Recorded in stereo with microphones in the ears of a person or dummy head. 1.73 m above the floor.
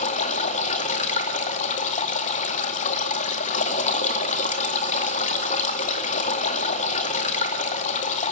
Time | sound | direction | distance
0.0 | running water | 45° left (ahead or behind) | 1.8 m